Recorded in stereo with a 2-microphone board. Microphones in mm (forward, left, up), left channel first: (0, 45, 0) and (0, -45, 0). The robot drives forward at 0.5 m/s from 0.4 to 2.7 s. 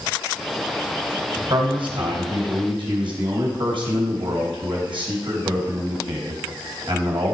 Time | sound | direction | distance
1.5 | a man speaking | 70° right (ahead or behind) | 3 m